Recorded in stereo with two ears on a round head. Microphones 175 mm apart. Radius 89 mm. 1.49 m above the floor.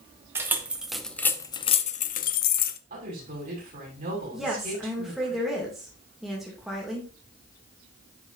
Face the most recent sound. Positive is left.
turn(degrees=0)  # may be behind; listen again after turning